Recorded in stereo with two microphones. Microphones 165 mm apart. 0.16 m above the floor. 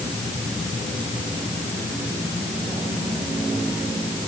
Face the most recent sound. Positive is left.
No sound to turn to.